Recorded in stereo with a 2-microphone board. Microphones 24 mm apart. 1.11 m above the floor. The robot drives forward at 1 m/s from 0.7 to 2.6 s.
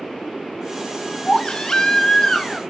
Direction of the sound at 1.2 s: 35° left (ahead or behind).